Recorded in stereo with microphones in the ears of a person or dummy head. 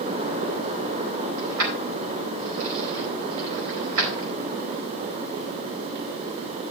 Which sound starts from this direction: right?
Keys jangling, at 1.4 s.